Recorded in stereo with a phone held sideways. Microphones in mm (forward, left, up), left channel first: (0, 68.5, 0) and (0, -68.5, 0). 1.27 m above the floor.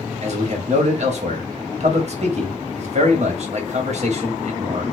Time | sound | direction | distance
0.2 | a man speaking | 55° right (ahead or behind) | 1.2 m